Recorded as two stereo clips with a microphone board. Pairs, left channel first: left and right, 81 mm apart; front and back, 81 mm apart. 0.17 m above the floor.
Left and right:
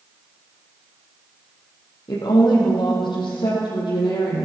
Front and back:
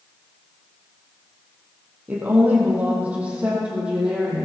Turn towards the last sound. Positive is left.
turn(degrees=100)